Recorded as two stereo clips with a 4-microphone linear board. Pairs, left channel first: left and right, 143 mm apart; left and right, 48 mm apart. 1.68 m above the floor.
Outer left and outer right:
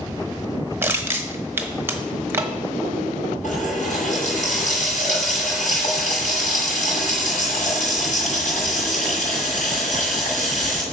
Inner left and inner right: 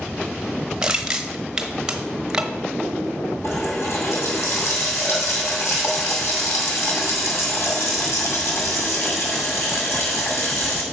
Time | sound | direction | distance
0.8 | crushing | 15° right (ahead or behind) | 1.1 m
3.4 | a running tap | 65° left (ahead or behind) | 6.5 m